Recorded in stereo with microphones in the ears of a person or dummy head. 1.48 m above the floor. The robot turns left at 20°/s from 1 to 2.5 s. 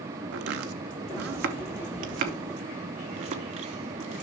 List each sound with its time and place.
0.3 s chopping: 65° right (ahead or behind), 0.9 m; by 4.2 s 45° right (ahead or behind), 0.9 m